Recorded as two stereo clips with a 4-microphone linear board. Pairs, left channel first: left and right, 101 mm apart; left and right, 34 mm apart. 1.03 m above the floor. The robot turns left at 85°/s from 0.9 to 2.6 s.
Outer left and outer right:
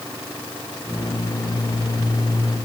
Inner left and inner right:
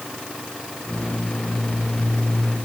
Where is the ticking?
No ticking in this recording.